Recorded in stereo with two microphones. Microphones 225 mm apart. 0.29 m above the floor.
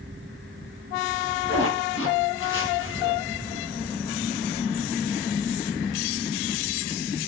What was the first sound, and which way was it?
A zipper, 70° left (ahead or behind).